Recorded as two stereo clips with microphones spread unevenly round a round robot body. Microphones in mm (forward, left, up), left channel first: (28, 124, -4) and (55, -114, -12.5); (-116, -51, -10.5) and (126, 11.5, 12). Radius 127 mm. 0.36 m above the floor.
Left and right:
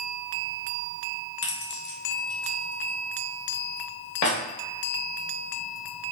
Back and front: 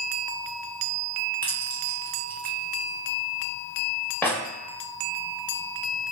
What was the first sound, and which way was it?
Keys jangling, 115° left.